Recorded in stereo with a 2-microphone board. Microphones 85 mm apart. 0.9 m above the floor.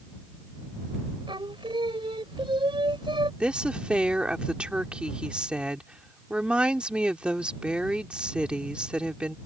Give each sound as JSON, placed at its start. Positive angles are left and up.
{"t": 1.3, "sound": "singing", "side_deg": -75}
{"t": 3.4, "sound": "a woman speaking", "side_deg": -10}